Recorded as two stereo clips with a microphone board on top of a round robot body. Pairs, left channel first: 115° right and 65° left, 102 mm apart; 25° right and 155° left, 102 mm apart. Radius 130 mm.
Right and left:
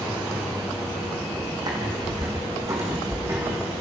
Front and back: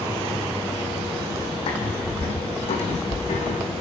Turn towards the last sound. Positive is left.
turn(degrees=-5)